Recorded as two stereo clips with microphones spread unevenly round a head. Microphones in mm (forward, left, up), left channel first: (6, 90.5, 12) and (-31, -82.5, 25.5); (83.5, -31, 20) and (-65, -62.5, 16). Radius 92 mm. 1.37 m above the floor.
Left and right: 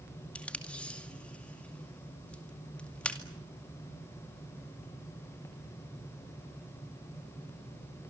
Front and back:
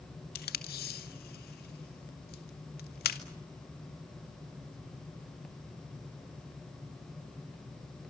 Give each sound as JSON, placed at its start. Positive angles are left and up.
{"t": 0.3, "sound": "tape being pulled", "azimuth_deg": -5, "distance_m": 2.0}